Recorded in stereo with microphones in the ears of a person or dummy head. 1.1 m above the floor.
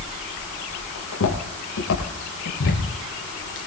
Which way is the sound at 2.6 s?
70° left (ahead or behind).